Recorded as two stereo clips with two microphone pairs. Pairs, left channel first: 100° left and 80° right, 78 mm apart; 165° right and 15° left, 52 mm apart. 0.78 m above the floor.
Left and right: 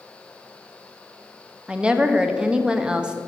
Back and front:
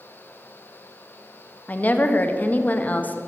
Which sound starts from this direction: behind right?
A woman speaking, at 1.7 s.